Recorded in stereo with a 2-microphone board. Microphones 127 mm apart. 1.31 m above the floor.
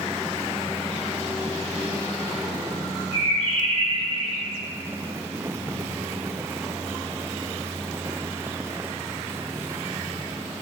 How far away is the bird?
About 2.5 m.